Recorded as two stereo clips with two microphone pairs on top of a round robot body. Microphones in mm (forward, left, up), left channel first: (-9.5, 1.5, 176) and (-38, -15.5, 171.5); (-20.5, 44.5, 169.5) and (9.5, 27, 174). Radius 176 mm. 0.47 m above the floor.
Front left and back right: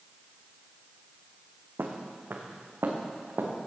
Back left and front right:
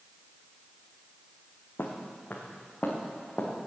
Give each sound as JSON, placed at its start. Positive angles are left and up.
{"t": 1.8, "sound": "footsteps", "azimuth_deg": -170, "distance_m": 1.8}